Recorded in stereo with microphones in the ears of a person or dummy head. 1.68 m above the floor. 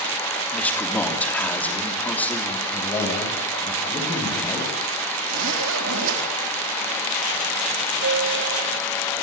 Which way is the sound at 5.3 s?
75° right (ahead or behind).